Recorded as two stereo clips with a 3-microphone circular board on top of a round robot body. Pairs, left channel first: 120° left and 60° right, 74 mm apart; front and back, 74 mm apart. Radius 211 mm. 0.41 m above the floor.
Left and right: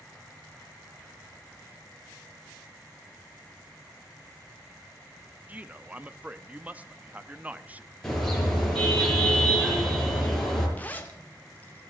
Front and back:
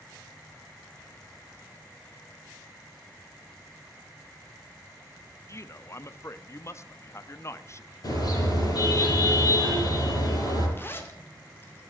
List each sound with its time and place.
5.5 s a man speaking: 5° right, 1.0 m
8.0 s a car horn: 35° left, 6 m
10.8 s a zipper: 55° left, 2.5 m